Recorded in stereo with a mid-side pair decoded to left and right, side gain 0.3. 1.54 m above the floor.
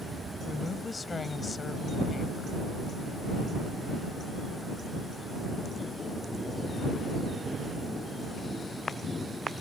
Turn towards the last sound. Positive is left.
turn(degrees=50)